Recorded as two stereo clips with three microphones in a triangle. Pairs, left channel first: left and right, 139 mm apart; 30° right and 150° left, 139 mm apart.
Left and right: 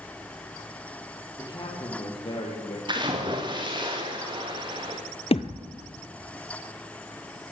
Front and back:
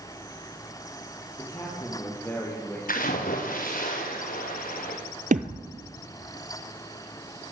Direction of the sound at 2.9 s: 35° right.